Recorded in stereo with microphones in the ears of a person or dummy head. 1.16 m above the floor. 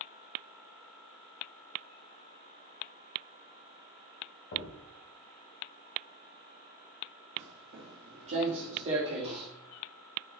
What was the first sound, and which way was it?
A thud, 45° left (ahead or behind).